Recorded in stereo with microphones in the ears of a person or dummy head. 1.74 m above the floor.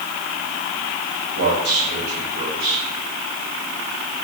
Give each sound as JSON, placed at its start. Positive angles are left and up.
{"t": 1.4, "sound": "a man speaking", "side_deg": -50, "distance_m": 7.5}